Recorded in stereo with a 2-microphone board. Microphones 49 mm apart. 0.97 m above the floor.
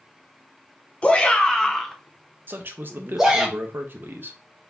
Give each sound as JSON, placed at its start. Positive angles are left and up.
{"t": 1.0, "sound": "a shout", "side_deg": 25, "distance_m": 0.7}
{"t": 2.5, "sound": "a man speaking", "side_deg": -45, "distance_m": 0.8}